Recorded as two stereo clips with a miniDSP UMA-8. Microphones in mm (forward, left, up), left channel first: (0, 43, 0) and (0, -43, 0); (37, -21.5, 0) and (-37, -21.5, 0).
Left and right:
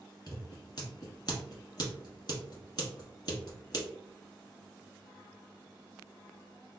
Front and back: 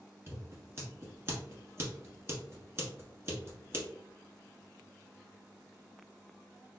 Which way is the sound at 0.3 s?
125° left.